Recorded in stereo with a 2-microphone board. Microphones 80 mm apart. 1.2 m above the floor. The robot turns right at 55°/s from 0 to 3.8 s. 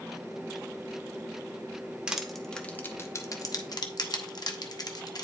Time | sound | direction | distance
2.1 | crushing | 10° right (ahead or behind) | 0.8 m